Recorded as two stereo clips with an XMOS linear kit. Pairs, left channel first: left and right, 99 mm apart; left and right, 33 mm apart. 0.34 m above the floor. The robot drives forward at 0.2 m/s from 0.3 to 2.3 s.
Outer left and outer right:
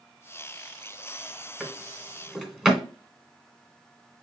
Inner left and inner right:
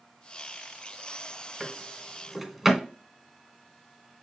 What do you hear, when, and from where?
1.6 s a drawer: 5° right (ahead or behind), 0.8 m